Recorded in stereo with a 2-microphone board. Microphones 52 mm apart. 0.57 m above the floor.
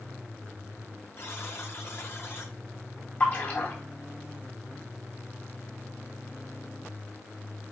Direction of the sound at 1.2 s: 50° left (ahead or behind).